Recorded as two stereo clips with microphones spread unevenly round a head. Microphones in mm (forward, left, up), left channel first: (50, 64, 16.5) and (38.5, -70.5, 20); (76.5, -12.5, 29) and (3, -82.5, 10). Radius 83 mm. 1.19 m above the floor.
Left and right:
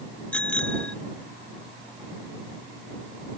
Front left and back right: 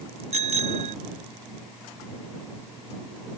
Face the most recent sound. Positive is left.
turn(degrees=170)